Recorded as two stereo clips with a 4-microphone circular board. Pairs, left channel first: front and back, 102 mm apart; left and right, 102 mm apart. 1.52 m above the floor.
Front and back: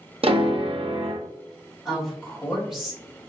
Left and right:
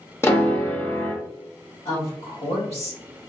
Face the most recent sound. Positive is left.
turn(degrees=95)